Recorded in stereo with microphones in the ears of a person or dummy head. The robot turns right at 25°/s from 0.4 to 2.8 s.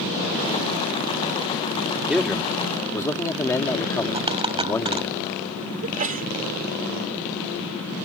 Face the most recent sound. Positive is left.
turn(degrees=-40)  # may be behind; listen again after turning